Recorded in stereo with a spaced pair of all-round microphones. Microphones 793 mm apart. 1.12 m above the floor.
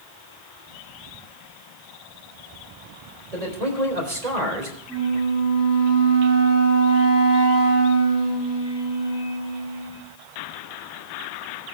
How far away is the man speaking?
About 3.5 m.